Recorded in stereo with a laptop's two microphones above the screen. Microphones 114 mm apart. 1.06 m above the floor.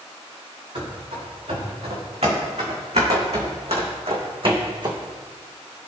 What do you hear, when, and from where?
0.8 s running footsteps: 65° right (ahead or behind), 4.5 m; by 5.0 s 40° right (ahead or behind), 2.5 m